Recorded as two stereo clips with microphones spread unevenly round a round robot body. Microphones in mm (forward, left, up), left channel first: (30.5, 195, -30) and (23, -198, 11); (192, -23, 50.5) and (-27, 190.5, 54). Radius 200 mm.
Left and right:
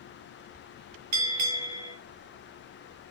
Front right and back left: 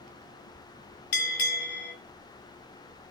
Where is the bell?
45° right, 3.5 m.